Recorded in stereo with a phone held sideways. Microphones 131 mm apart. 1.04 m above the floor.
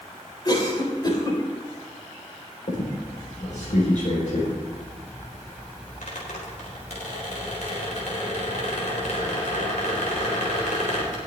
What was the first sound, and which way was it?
A cough, 35° left (ahead or behind).